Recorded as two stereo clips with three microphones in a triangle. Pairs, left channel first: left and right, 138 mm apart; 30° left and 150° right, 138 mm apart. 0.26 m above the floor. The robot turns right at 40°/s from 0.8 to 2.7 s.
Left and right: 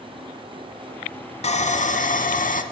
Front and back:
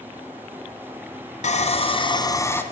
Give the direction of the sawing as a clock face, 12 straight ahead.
10 o'clock.